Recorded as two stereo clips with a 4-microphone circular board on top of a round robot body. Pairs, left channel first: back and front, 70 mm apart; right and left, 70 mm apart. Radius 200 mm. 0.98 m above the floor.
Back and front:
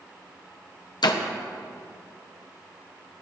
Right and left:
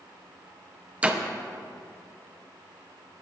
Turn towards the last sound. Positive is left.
turn(degrees=165)